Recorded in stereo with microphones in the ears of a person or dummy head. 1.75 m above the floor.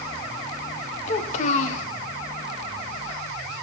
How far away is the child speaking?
About 0.9 m.